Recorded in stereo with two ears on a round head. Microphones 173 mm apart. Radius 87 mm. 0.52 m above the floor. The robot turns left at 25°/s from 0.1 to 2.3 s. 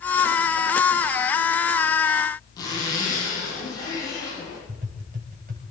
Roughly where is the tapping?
Right.